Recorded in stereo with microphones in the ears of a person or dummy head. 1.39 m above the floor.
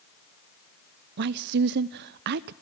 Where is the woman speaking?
60° right (ahead or behind), 0.6 m.